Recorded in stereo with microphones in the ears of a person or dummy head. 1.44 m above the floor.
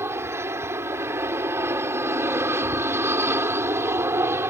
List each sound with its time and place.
0.0 s an aircraft: 15° right (ahead or behind)